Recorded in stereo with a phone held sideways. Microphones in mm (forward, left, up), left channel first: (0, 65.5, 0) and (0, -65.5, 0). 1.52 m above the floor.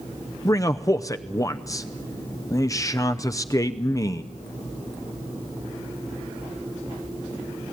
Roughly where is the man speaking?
Left.